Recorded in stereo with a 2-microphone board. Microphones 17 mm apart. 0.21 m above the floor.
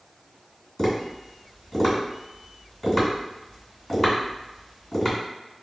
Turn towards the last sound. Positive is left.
turn(degrees=20)  # may be behind; listen again after turning